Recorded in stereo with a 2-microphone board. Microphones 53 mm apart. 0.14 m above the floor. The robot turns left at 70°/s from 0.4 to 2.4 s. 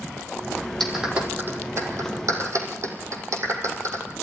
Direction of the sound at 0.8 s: 5° left (ahead or behind).